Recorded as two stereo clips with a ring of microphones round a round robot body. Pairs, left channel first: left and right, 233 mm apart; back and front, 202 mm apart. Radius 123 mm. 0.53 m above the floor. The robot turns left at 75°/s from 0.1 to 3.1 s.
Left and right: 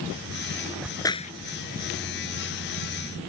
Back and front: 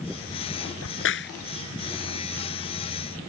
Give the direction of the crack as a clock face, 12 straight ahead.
6 o'clock.